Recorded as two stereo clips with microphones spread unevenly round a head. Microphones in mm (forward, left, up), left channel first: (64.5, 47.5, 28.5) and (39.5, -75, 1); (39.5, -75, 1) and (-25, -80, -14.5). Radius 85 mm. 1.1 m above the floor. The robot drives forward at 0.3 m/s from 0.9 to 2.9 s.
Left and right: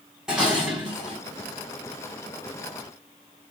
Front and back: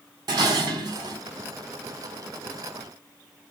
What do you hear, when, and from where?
0.3 s dishes clattering: 170° left, 0.6 m; by 1.2 s 175° left, 0.6 m